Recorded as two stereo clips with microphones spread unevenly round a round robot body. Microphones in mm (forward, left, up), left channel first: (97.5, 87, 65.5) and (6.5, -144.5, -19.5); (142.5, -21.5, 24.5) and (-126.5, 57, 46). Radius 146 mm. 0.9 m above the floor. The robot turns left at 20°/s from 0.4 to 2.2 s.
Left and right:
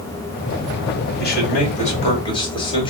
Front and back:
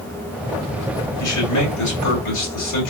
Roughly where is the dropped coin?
I don't hear a dropped coin.